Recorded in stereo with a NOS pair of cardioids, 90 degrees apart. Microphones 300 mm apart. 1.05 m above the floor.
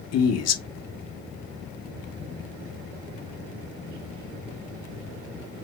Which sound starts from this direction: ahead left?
A man speaking, at 0.1 s.